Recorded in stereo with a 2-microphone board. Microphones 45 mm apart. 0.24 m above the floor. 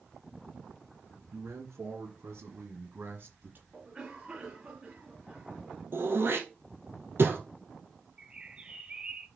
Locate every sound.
1.3 s a man speaking: 75° right (ahead or behind), 4.5 m; by 3.6 s 45° right (ahead or behind), 2.5 m
3.7 s a cough: 15° right (ahead or behind), 3 m
5.9 s throat clearing: 60° right (ahead or behind), 2.5 m
8.2 s a bird: 20° right (ahead or behind), 0.8 m